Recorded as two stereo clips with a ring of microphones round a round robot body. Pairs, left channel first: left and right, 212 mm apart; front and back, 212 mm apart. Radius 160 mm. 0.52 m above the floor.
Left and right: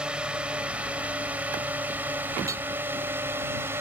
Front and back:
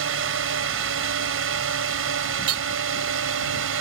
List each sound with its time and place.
0.0 s a drone: 175° right; by 3.8 s 170° right
2.5 s hammering: 170° right